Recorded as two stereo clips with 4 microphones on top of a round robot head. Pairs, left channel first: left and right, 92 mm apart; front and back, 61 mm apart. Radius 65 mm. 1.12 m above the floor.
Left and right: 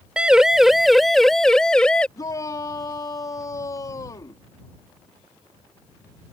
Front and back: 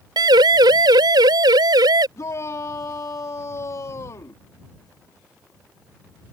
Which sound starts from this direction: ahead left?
A shout, at 2.2 s.